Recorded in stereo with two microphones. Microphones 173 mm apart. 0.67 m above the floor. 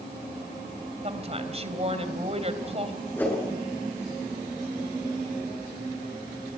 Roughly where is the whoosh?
Centre.